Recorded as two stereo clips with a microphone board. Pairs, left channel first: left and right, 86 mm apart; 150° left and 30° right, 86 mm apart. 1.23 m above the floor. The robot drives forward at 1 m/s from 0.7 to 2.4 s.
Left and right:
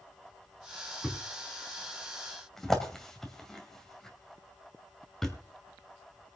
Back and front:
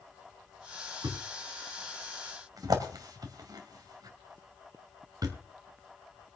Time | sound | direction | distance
1.0 | a thud | straight ahead | 3 m